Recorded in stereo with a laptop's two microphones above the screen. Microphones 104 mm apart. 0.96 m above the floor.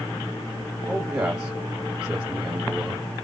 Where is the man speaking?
10° right (ahead or behind), 1.8 m.